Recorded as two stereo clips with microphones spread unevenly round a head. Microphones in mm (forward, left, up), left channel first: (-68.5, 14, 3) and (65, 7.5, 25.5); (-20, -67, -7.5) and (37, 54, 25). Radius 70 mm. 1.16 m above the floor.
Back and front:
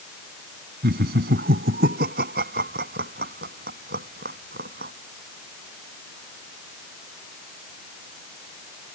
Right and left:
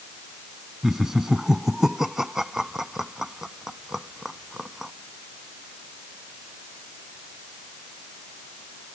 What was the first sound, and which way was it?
Laughter, 20° right.